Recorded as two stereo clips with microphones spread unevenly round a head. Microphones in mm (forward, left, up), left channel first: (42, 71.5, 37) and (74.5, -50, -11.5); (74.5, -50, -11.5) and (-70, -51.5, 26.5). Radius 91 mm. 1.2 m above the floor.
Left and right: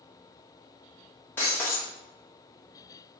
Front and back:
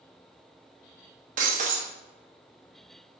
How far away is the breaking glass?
About 0.7 m.